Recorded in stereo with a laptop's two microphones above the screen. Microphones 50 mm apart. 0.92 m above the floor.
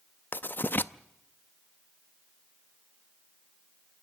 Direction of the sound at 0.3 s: 40° left (ahead or behind).